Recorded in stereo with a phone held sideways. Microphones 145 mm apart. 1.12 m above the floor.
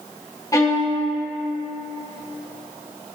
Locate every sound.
0.5 s a violin: 25° left (ahead or behind), 1.6 m